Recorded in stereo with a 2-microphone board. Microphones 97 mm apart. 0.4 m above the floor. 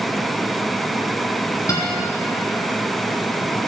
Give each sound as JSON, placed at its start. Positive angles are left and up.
{"t": 1.7, "sound": "a guitar", "side_deg": 35, "distance_m": 2.5}